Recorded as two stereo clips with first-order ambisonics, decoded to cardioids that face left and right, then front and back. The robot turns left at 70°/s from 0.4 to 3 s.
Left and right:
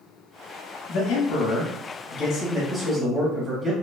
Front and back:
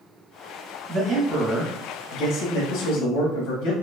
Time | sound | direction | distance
0.9 | a man speaking | 125° left | 1.1 m